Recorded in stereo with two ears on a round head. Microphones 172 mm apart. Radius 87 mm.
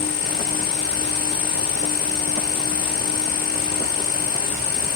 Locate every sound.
0.0 s an insect: 65° left (ahead or behind), 4 m